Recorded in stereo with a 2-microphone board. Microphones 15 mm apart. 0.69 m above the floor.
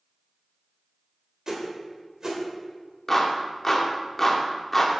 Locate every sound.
1.5 s a whoosh: 40° right (ahead or behind), 2.0 m
3.1 s a clap: 15° left (ahead or behind), 1.2 m